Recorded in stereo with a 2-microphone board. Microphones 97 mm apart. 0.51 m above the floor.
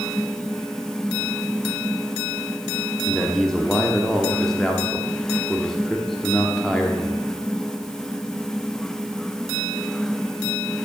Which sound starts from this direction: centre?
A man speaking, at 3.1 s.